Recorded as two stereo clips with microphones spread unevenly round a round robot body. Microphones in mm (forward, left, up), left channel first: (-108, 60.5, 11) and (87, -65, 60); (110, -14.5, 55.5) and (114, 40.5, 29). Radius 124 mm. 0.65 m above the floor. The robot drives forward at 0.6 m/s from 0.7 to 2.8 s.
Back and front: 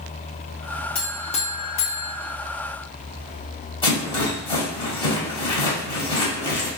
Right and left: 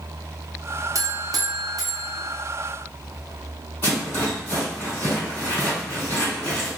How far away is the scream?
No scream in this recording.